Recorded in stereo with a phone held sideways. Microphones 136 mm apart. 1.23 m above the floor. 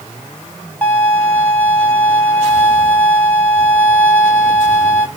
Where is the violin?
15° left (ahead or behind), 1.0 m.